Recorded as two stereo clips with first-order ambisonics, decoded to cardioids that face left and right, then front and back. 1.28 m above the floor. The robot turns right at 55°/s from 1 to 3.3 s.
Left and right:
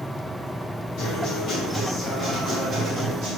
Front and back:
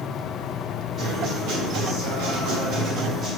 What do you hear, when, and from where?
1.0 s a guitar: 115° left, 1.9 m; by 3.4 s 120° right, 1.9 m